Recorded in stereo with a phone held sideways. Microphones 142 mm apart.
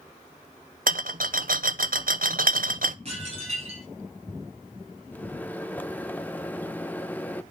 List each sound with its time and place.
0.9 s a rattle: 80° right, 0.8 m
3.0 s dishes clattering: 50° right (ahead or behind), 7 m
5.1 s a microwave: 10° left (ahead or behind), 0.7 m